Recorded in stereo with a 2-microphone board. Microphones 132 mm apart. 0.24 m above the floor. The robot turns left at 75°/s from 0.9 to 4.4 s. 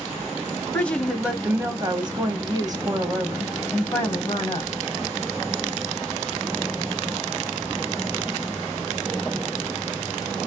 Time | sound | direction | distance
0.7 | a woman speaking | 15° left | 1.1 m